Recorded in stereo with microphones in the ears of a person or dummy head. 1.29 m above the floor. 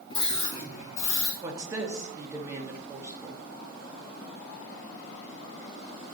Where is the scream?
30° left (ahead or behind), 1.0 m; by 1.3 s 55° left (ahead or behind), 2 m.